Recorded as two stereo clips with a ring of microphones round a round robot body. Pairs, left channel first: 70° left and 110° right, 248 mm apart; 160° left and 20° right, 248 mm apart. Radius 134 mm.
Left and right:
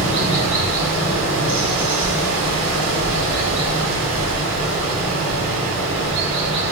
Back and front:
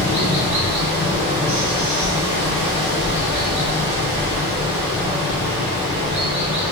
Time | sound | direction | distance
0.0 | running water | 85° right | 1.0 m